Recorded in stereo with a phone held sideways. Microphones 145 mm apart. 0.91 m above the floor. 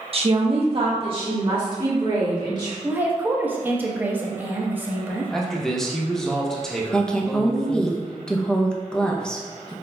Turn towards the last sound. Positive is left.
turn(degrees=5)  # may be behind; listen again after turning